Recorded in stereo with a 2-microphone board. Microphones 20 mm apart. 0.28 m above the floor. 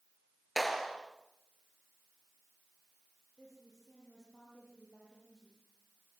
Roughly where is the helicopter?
No helicopter in this recording.